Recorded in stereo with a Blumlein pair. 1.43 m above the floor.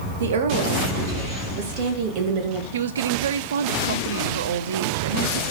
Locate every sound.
0.2 s a woman speaking: 60° right, 1.8 m; by 2.6 s 40° right, 2.5 m
2.7 s a woman speaking: 60° right, 0.8 m